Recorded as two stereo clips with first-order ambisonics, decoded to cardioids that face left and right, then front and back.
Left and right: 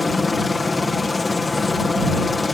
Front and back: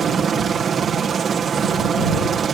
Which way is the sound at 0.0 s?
150° left.